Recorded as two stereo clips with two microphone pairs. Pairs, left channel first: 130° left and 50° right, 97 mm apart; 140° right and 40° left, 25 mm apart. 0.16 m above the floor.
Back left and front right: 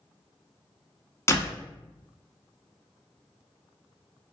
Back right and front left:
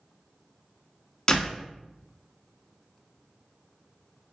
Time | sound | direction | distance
1.3 | a door slam | 165° left | 0.9 m